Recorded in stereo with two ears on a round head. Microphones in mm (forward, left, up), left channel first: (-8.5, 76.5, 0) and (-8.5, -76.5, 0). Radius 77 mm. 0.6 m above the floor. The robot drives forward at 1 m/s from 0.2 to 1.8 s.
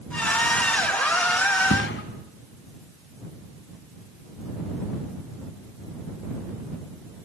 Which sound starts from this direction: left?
A thud, at 1.7 s.